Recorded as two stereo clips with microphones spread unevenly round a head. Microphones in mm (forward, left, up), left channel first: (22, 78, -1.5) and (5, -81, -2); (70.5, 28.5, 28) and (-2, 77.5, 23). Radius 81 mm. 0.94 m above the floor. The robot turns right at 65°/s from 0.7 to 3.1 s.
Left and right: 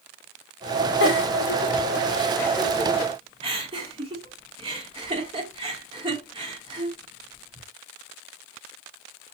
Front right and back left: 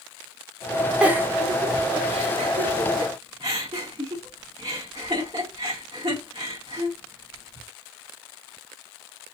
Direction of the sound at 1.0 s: 65° left.